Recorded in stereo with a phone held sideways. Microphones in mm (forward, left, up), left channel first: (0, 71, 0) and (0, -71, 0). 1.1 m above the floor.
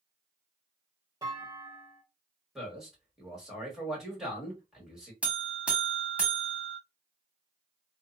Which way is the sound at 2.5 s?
5° right (ahead or behind).